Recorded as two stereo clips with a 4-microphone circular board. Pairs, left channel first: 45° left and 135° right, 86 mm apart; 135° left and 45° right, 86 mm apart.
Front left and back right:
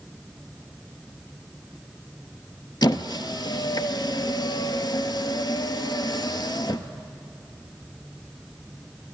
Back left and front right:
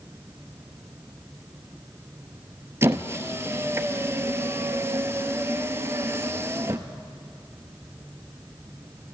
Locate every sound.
2.8 s a squeak: 15° left, 0.6 m